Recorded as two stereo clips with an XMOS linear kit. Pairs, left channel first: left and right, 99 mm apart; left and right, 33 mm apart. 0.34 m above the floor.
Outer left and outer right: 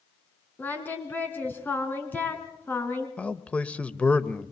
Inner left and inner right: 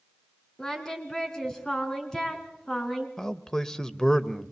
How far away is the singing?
About 3 m.